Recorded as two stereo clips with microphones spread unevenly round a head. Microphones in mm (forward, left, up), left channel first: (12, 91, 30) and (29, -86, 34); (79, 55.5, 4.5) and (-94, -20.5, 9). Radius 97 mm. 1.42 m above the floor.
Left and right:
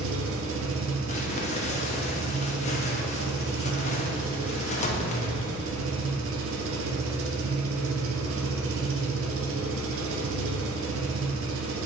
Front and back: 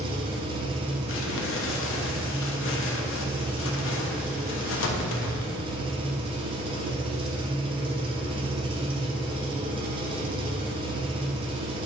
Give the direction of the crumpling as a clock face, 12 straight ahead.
11 o'clock.